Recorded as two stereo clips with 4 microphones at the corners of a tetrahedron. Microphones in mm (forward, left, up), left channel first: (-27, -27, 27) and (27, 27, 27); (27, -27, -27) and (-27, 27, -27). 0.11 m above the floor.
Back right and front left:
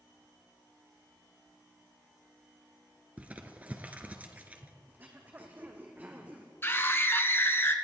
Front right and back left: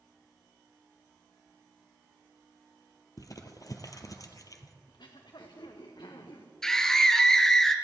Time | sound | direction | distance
3.2 | crumpling | 20° right | 1.4 m
4.9 | throat clearing | 20° right | 2 m
6.6 | a scream | 120° right | 1.4 m